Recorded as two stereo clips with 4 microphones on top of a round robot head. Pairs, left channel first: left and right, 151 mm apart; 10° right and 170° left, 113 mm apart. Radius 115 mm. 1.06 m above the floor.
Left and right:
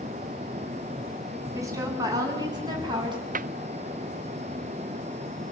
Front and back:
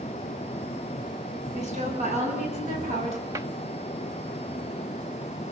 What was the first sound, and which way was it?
A woman speaking, 160° right.